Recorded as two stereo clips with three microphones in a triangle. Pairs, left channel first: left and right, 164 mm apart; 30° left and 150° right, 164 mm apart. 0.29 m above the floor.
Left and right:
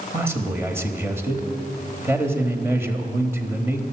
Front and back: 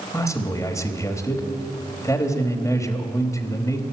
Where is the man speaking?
25° right, 1.2 m.